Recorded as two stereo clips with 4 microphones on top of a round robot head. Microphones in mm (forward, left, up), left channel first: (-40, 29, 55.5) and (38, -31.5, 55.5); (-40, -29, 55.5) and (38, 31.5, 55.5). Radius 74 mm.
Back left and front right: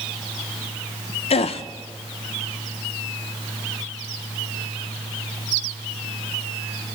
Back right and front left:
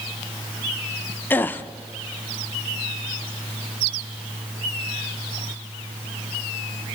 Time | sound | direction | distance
1.3 | a gasp | 150° left | 0.6 m